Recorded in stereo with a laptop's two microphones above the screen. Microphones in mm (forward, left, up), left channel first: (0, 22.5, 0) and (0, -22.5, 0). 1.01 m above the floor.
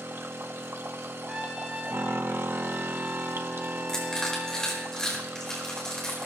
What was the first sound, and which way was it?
A machine running, 65° right (ahead or behind).